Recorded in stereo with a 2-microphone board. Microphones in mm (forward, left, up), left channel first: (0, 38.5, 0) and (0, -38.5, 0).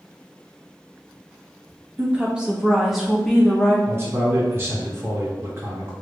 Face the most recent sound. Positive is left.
turn(degrees=-35)  # may be behind; listen again after turning